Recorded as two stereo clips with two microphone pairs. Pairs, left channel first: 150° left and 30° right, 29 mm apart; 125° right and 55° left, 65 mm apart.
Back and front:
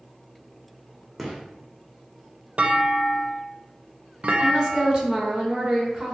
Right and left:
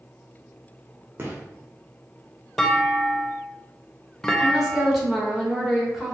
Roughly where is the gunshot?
Ahead left.